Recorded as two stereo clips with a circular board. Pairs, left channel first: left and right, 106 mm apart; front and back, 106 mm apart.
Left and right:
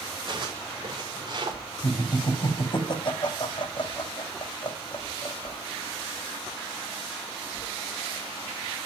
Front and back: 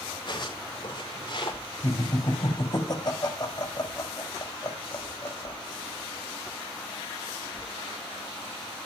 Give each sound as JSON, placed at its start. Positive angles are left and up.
{"t": 0.3, "sound": "footsteps", "azimuth_deg": -40, "distance_m": 9.0}
{"t": 1.8, "sound": "laughter", "azimuth_deg": 50, "distance_m": 3.5}